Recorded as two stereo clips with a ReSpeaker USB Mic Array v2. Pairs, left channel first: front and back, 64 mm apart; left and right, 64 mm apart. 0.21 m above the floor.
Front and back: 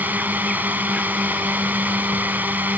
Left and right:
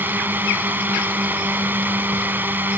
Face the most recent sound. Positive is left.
turn(degrees=-130)